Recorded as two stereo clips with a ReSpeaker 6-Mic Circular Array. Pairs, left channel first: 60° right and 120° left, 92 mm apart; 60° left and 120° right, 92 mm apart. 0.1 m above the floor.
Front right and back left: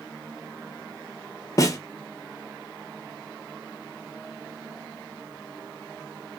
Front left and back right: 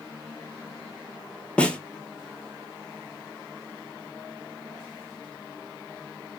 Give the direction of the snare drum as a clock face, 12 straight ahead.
1 o'clock.